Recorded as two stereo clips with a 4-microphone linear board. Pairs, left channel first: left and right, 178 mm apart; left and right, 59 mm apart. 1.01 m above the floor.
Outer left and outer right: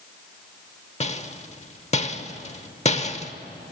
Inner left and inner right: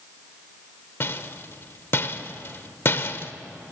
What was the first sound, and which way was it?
A rattle, 40° left (ahead or behind).